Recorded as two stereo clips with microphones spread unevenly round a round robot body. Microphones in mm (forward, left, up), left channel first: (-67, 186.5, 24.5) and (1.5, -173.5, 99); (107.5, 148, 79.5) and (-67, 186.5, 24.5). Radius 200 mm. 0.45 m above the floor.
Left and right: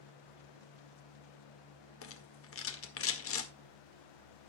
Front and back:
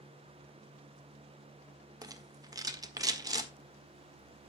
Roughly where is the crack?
No crack in this recording.